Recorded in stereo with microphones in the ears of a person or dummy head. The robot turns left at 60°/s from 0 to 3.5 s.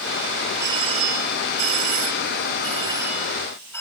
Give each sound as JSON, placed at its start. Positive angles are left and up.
{"t": 0.6, "sound": "a doorbell", "azimuth_deg": -15}